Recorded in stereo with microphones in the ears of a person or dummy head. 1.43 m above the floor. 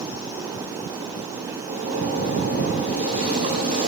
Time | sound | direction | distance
1.7 | a zipper | 40° right (ahead or behind) | 7 m